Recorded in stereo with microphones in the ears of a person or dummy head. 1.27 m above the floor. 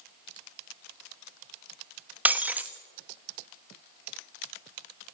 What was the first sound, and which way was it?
Breaking glass, 10° right (ahead or behind).